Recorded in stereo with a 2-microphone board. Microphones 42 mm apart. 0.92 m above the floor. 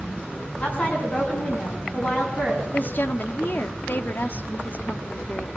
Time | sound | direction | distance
0.6 | a woman speaking | 35° left (ahead or behind) | 8 m
2.7 | a woman speaking | 50° left (ahead or behind) | 2.0 m